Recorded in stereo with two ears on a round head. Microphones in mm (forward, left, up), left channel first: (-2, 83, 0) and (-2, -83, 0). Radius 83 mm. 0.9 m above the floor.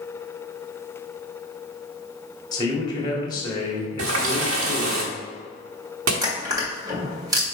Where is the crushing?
20° right (ahead or behind), 1.9 m.